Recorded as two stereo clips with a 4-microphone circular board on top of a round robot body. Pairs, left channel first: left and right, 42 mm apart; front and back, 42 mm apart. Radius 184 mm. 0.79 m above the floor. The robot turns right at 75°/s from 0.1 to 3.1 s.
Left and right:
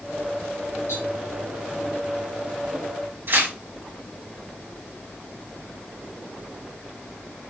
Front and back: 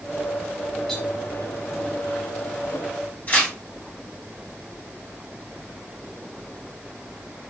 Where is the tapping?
90° left, 5.5 m; by 1.0 s 100° left, 5.5 m.